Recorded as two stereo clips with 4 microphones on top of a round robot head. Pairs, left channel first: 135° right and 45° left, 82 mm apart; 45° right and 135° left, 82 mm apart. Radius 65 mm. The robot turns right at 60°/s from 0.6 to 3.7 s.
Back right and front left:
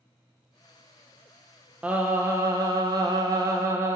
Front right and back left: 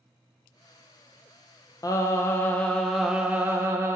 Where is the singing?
25° right, 0.6 m; by 4.0 s 85° left, 0.6 m.